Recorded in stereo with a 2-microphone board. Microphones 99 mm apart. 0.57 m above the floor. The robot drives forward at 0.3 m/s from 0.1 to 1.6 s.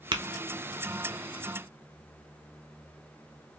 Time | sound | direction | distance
0.1 | tapping | 50° right (ahead or behind) | 0.6 m